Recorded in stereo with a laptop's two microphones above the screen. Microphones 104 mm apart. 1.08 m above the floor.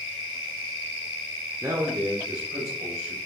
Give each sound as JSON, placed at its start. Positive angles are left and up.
{"t": 1.6, "sound": "a man speaking", "side_deg": -25, "distance_m": 0.6}